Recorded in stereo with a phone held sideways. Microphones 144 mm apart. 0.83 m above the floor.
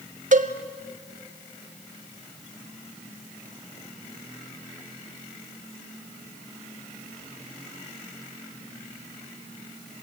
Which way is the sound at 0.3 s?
60° right (ahead or behind).